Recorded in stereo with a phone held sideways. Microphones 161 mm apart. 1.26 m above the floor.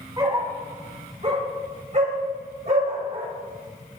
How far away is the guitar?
No guitar in this recording.